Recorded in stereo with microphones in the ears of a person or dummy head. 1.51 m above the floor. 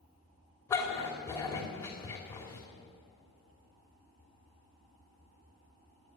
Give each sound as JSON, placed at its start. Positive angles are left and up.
{"t": 0.7, "sound": "a dog barking", "side_deg": 15, "distance_m": 2.5}